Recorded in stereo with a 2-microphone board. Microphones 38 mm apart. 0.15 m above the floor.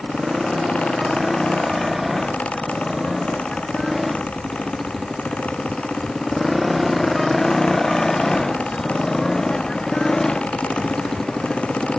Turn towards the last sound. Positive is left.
turn(degrees=15)  # may be behind; listen again after turning